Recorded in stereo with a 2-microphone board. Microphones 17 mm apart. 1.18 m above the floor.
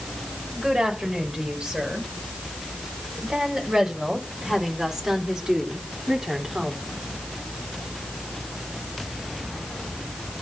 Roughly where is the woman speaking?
Right.